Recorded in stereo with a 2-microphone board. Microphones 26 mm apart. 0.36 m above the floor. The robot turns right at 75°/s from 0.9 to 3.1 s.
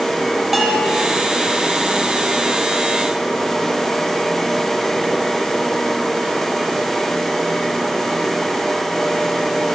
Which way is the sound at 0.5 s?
10° right (ahead or behind).